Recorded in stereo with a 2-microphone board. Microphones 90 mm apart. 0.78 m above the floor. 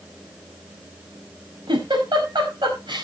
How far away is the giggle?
About 5 m.